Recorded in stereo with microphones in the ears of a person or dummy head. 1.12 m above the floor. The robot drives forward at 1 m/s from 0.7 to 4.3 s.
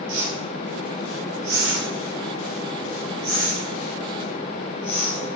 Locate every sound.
0.1 s a whoosh: 70° right (ahead or behind), 2.5 m; by 5.3 s 40° right (ahead or behind), 3.5 m